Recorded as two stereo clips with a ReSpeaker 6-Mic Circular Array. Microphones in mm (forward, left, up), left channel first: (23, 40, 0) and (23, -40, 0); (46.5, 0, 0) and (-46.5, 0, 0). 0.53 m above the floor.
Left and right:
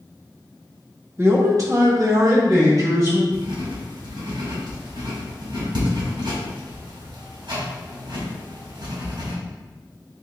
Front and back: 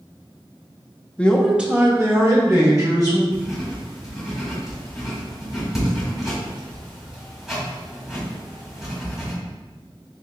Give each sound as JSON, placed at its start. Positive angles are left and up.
{"t": 1.2, "sound": "a man speaking", "azimuth_deg": -60, "distance_m": 0.7}
{"t": 3.3, "sound": "writing", "azimuth_deg": -95, "distance_m": 2.0}